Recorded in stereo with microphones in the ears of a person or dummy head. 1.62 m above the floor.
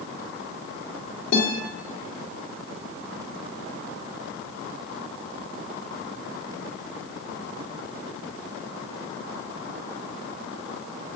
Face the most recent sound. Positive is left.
turn(degrees=70)  # may be behind; listen again after turning